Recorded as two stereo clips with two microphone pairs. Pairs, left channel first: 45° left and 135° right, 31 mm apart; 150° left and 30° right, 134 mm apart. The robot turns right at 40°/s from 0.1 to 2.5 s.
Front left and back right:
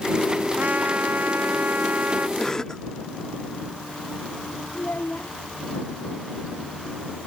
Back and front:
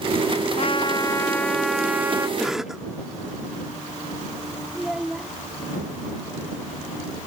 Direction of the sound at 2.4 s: 55° left.